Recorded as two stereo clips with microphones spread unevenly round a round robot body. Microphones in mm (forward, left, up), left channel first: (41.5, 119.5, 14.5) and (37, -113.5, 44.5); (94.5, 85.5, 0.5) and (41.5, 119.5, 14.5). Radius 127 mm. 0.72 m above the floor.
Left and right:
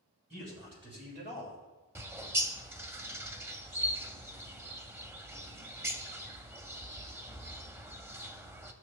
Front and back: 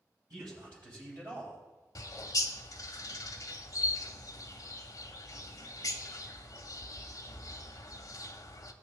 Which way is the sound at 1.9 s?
20° right.